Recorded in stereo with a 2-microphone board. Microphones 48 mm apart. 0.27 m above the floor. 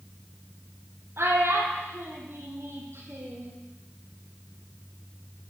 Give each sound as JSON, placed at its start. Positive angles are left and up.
{"t": 1.2, "sound": "a child speaking", "side_deg": -75, "distance_m": 5.5}